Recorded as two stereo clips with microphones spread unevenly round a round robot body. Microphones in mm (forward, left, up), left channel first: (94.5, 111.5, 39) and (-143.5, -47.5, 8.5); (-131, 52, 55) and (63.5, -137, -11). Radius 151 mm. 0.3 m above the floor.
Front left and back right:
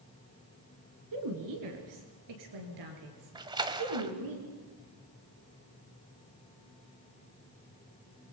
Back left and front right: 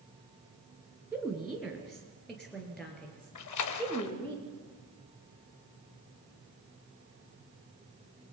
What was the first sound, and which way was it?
A woman speaking, 125° right.